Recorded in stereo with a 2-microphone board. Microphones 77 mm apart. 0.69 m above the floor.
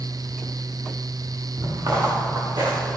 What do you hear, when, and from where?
1.6 s footsteps: 55° right (ahead or behind), 4 m; by 3.0 s 75° right (ahead or behind), 3.5 m